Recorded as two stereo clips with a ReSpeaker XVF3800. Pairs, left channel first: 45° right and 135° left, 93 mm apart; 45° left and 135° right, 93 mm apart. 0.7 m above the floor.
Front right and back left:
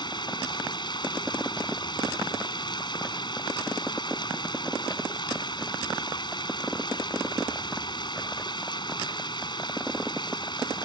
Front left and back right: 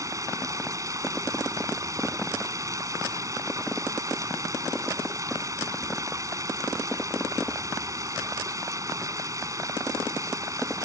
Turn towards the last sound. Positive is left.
turn(degrees=-80)